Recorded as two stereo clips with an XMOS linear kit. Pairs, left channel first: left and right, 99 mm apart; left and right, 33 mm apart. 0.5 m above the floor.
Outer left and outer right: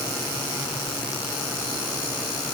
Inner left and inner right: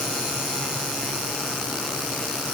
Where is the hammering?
No hammering in this recording.